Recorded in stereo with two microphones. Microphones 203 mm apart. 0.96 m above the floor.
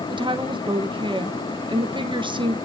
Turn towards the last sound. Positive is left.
turn(degrees=-25)  # may be behind; listen again after turning